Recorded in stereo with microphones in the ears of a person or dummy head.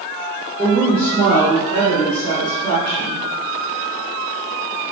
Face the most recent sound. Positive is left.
turn(degrees=55)  # may be behind; listen again after turning